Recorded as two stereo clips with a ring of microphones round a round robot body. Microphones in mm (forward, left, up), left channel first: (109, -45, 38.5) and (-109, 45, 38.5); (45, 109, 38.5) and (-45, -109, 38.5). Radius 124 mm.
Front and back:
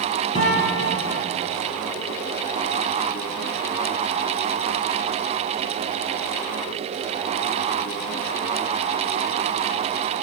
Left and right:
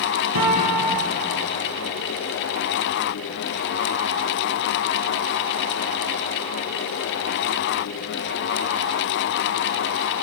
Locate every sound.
0.3 s a guitar: 95° right, 3.5 m